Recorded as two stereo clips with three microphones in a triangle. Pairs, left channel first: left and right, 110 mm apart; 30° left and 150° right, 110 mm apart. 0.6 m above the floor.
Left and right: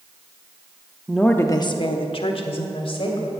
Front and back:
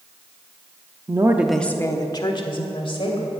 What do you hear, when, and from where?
1.1 s a woman speaking: 175° right, 0.7 m; by 3.3 s 60° left, 2.5 m